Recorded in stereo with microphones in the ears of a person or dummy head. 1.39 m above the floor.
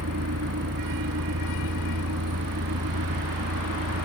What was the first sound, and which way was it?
A vehicle, 70° right (ahead or behind).